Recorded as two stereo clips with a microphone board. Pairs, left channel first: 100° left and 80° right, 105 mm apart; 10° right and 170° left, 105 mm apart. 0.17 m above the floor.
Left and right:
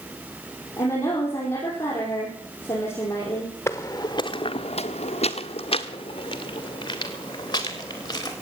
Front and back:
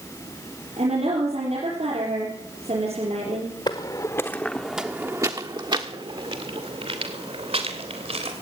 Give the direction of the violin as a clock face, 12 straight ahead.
I don't hear a violin.